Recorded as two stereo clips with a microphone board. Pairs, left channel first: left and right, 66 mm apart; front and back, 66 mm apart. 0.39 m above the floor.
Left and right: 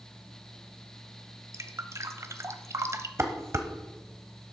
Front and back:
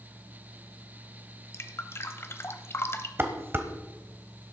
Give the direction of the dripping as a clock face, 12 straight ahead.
2 o'clock.